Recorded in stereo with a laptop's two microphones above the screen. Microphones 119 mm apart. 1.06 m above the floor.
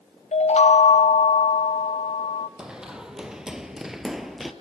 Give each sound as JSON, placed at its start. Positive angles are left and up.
{"t": 0.3, "sound": "a chime", "side_deg": 65, "distance_m": 0.5}
{"t": 2.6, "sound": "running footsteps", "side_deg": -5, "distance_m": 1.9}